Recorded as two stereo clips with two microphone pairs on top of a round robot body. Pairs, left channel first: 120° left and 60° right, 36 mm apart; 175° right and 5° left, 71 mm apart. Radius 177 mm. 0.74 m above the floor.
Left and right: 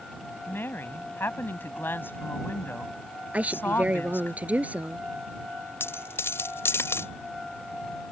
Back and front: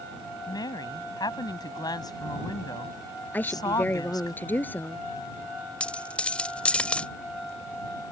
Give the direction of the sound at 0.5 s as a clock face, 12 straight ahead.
7 o'clock.